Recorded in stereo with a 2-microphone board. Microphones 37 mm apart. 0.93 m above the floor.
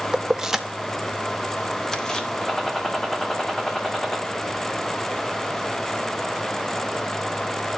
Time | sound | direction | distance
0.1 | keys jangling | 20° right (ahead or behind) | 0.8 m
2.4 | a gunshot | 10° left (ahead or behind) | 2 m